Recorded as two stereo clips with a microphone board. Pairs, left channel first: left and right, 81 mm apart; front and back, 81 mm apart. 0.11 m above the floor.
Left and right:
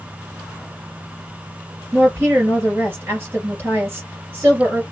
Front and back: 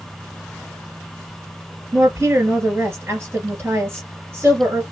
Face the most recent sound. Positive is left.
turn(degrees=-135)